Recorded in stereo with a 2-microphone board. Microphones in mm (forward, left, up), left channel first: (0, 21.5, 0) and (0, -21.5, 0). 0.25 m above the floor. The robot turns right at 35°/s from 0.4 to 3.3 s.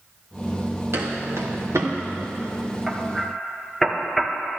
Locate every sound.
0.9 s footsteps: 70° right (ahead or behind), 2.5 m; by 1.9 s 85° right, 2 m
2.9 s hammering: 10° right (ahead or behind), 1.2 m; by 4.3 s 5° left (ahead or behind), 1.2 m